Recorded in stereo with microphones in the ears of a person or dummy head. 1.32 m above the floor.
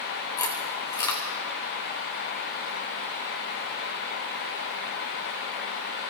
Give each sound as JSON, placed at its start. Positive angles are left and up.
{"t": 0.4, "sound": "chewing", "side_deg": 15, "distance_m": 0.7}